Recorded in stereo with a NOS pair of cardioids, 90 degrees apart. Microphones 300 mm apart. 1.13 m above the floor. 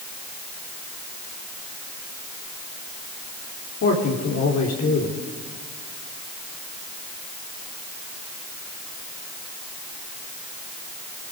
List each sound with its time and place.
3.8 s a man speaking: 55° left, 3.5 m